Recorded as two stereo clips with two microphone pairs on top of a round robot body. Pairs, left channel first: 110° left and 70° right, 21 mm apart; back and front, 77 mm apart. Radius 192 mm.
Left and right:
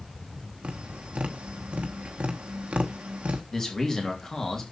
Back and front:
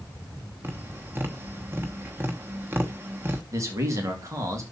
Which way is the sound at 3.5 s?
45° left.